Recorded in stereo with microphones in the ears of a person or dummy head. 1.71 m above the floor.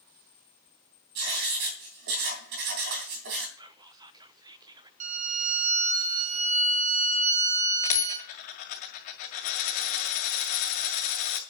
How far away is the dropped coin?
About 2 m.